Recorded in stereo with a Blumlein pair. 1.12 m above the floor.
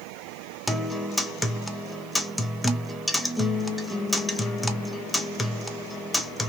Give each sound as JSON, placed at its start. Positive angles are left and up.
{"t": 0.7, "sound": "a guitar", "azimuth_deg": 5, "distance_m": 0.8}